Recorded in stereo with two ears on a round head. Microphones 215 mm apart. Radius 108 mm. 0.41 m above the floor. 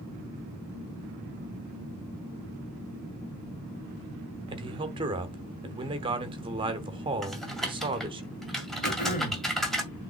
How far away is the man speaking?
About 1.1 m.